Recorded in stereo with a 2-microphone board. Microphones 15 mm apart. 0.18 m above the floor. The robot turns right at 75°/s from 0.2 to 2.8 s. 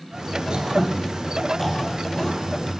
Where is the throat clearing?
70° right (ahead or behind), 4 m; by 2.4 s 60° left (ahead or behind), 4 m.